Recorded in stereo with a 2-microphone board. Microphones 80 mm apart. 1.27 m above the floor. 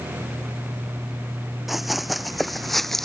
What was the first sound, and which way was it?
Running footsteps, centre (ahead or behind).